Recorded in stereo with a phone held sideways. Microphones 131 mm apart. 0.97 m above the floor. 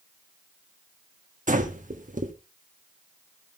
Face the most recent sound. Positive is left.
turn(degrees=-75)  # may be behind; listen again after turning